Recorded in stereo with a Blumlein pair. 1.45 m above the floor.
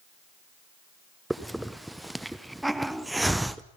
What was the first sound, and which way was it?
A hiss, 5° right.